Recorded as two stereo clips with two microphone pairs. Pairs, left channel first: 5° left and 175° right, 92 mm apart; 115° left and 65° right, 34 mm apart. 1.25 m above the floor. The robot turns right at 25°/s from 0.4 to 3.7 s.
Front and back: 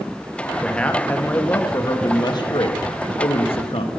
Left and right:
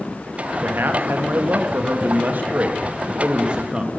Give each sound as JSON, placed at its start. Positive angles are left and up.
{"t": 0.6, "sound": "a man speaking", "azimuth_deg": -80, "distance_m": 1.8}